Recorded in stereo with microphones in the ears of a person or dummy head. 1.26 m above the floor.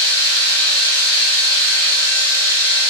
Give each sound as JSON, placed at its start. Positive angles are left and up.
{"t": 0.0, "sound": "a machine running", "side_deg": 20, "distance_m": 4.0}